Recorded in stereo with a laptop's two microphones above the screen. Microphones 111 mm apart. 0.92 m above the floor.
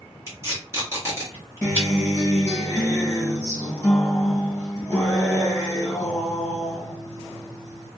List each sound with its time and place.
0.3 s tape being pulled: 25° right (ahead or behind), 1.4 m
1.6 s a guitar: 10° left (ahead or behind), 1.4 m